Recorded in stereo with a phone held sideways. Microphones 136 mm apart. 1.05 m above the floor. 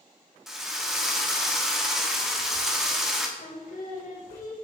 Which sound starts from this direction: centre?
A drill, at 0.5 s.